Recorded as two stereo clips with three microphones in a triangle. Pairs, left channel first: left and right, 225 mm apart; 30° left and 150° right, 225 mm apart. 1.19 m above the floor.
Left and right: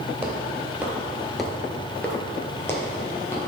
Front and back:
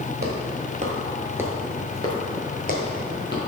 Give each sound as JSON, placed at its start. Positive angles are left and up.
{"t": 0.2, "sound": "footsteps", "azimuth_deg": -165, "distance_m": 1.7}